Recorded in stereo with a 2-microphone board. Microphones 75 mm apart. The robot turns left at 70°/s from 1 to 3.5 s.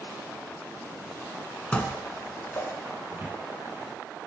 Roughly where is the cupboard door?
Right.